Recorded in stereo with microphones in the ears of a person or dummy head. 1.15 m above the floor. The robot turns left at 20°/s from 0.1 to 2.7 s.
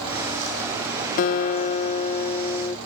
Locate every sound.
1.2 s a guitar: 65° left; by 2.8 s 30° left